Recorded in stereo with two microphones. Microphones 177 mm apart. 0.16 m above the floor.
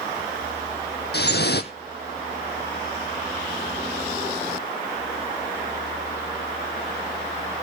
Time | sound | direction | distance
1.1 | dripping | 70° left (ahead or behind) | 1.2 m